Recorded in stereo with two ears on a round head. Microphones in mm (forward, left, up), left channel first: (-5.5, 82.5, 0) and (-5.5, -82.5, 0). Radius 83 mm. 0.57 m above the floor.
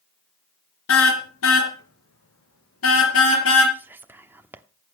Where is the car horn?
90° left, 3.5 m.